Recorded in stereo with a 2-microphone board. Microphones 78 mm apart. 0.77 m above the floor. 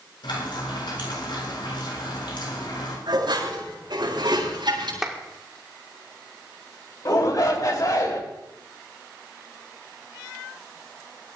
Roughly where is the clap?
Centre.